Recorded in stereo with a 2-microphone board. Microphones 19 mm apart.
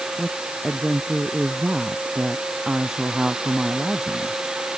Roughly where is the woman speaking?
Right.